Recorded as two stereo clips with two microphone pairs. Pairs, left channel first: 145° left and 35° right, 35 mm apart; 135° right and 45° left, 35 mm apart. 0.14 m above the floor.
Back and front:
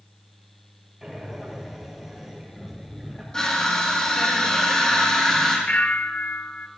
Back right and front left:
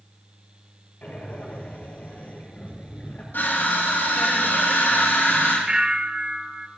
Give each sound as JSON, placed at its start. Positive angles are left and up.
{"t": 1.0, "sound": "breathing", "azimuth_deg": -115, "distance_m": 3.5}
{"t": 3.3, "sound": "crushing", "azimuth_deg": -145, "distance_m": 4.0}
{"t": 5.7, "sound": "a bell", "azimuth_deg": 105, "distance_m": 0.6}